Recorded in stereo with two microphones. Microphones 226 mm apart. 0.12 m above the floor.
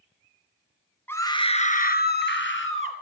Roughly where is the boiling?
I don't hear boiling.